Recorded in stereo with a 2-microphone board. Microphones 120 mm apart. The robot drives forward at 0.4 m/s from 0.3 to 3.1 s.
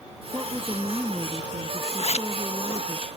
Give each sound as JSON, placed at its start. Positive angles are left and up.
{"t": 0.3, "sound": "a woman speaking", "side_deg": -15}
{"t": 2.0, "sound": "a zipper", "side_deg": 60}